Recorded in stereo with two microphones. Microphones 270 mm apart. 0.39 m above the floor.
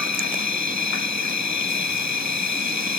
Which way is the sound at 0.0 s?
85° left.